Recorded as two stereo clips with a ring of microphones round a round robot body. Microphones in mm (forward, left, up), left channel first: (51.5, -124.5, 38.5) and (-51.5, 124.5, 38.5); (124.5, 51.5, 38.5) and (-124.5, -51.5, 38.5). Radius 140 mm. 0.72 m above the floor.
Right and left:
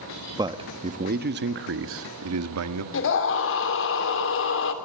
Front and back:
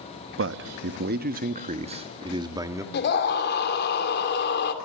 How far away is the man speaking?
About 1.1 m.